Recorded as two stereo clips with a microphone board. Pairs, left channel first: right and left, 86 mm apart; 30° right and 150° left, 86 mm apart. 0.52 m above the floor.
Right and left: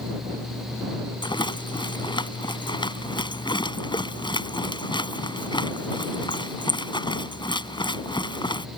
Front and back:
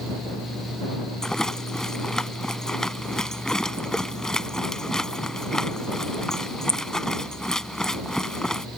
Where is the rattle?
115° right.